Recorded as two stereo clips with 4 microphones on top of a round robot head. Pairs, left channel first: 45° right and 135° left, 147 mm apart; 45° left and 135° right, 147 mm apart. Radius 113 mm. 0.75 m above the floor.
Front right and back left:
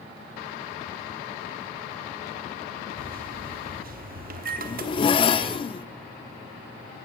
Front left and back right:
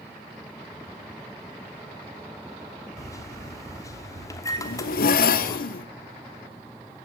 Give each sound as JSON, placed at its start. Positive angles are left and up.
{"t": 3.0, "sound": "a microwave", "azimuth_deg": 115, "distance_m": 1.2}
{"t": 4.6, "sound": "a zipper", "azimuth_deg": 15, "distance_m": 0.6}